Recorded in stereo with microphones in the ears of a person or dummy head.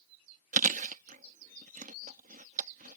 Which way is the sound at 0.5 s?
35° right (ahead or behind).